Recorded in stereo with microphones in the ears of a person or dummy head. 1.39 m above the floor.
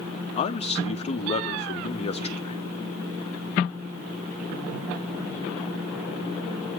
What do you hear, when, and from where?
0.4 s a man speaking: 25° left (ahead or behind), 1.0 m